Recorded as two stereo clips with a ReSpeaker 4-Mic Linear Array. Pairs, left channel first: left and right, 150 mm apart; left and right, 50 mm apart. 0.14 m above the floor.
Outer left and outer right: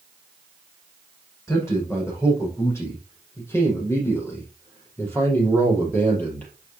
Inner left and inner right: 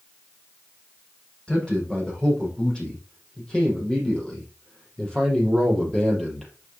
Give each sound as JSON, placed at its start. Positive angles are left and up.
{"t": 1.5, "sound": "a man speaking", "side_deg": 20, "distance_m": 7.5}